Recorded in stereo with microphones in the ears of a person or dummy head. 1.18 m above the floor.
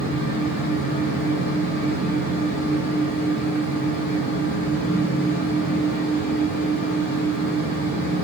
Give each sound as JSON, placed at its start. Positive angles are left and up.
{"t": 0.0, "sound": "a fan", "side_deg": 10, "distance_m": 1.3}